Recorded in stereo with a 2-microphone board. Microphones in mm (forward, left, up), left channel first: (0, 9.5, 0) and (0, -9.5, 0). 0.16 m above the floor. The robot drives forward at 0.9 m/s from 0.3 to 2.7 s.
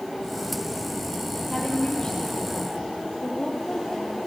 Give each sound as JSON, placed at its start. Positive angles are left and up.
{"t": 1.5, "sound": "a woman speaking", "side_deg": 45, "distance_m": 4.5}